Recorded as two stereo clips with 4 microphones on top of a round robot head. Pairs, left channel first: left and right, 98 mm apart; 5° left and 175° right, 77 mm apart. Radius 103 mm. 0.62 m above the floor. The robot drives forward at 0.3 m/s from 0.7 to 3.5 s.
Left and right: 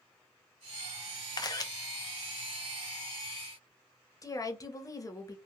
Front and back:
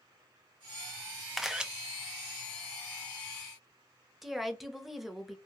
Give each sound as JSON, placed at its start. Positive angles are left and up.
{"t": 1.4, "sound": "a camera shutter", "azimuth_deg": 95, "distance_m": 0.5}
{"t": 4.2, "sound": "a woman speaking", "azimuth_deg": 100, "distance_m": 0.8}